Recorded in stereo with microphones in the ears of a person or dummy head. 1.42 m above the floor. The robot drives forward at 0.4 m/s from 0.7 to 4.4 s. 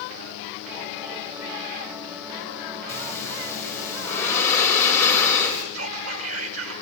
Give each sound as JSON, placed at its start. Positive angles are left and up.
{"t": 2.9, "sound": "breathing", "side_deg": 10, "distance_m": 6.0}
{"t": 5.7, "sound": "whispering", "side_deg": -90, "distance_m": 9.0}